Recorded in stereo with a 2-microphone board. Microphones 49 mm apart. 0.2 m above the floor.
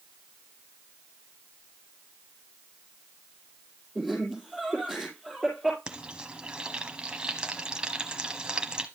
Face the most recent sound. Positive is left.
turn(degrees=-20)  # may be behind; listen again after turning